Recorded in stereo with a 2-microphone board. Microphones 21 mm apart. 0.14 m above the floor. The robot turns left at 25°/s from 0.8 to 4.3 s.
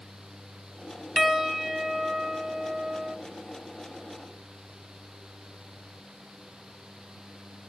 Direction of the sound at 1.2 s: 10° right.